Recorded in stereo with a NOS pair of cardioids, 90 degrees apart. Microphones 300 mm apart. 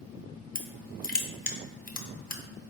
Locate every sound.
0.6 s crushing: 30° left, 0.7 m